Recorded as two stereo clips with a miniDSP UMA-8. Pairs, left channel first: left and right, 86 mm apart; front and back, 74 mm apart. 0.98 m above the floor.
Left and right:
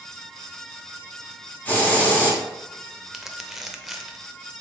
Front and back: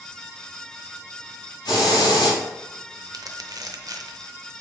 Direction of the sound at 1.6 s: 20° left.